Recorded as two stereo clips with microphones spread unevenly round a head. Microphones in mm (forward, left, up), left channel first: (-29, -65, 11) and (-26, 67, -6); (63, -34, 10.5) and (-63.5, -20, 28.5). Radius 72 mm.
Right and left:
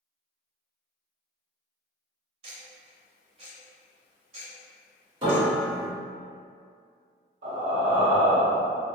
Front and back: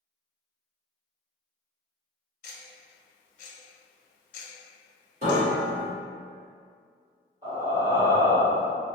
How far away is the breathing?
About 0.9 m.